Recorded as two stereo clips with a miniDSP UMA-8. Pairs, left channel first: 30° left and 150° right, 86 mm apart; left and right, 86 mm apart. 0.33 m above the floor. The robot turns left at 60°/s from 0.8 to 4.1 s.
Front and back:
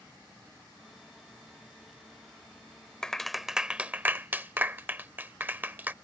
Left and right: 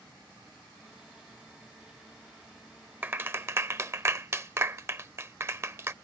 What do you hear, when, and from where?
3.0 s a clap: 45° right; by 5.9 s 110° right